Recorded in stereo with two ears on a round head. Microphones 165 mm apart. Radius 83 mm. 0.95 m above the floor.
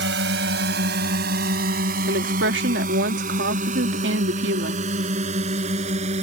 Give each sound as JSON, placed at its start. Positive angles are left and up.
{"t": 0.0, "sound": "a drone", "side_deg": -65}
{"t": 2.1, "sound": "a woman speaking", "side_deg": -65}